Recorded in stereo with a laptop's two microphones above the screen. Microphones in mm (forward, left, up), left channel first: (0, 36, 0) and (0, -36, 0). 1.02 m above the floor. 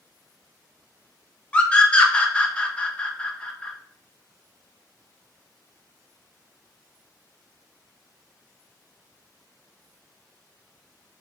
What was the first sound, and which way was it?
A scream, 15° left (ahead or behind).